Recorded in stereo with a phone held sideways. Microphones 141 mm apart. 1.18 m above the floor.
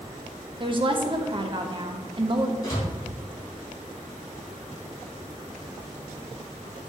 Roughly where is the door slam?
Left.